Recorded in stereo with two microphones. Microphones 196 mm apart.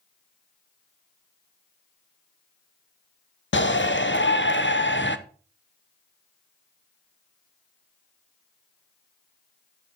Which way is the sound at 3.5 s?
70° left (ahead or behind).